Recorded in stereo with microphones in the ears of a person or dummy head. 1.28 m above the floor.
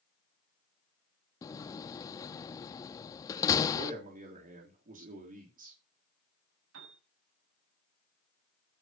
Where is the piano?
75° right (ahead or behind), 6.5 m.